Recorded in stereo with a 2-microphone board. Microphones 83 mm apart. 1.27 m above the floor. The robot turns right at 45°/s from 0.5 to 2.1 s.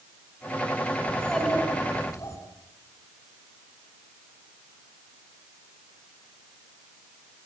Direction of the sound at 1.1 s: 5° right.